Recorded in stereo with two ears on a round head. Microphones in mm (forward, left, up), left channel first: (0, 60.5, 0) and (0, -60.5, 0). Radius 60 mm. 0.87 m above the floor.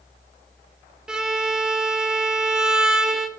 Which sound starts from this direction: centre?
A violin, at 1.1 s.